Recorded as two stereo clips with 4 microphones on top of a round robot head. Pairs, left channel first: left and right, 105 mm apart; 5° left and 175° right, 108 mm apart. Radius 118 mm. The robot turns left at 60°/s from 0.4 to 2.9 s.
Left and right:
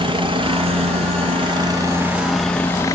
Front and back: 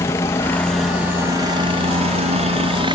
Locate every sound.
0.0 s a helicopter: 60° right; by 3.0 s 150° left